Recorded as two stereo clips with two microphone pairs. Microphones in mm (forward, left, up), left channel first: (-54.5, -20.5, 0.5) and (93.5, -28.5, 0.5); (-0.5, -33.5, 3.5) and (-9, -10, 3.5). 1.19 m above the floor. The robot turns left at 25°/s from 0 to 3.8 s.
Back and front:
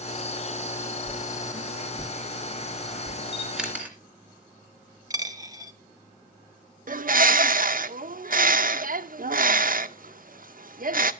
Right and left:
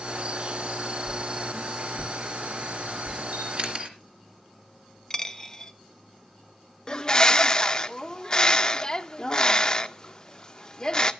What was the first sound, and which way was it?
A whoosh, 140° left.